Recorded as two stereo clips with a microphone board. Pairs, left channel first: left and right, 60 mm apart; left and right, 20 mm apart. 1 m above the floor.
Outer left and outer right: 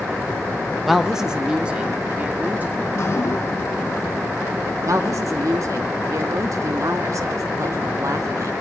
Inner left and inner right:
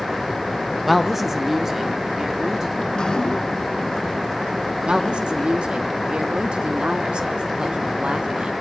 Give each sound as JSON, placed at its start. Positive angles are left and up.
{"t": 0.8, "sound": "a woman speaking", "side_deg": 0, "distance_m": 1.3}
{"t": 2.9, "sound": "dripping", "side_deg": 45, "distance_m": 1.1}
{"t": 4.8, "sound": "a woman speaking", "side_deg": -60, "distance_m": 1.6}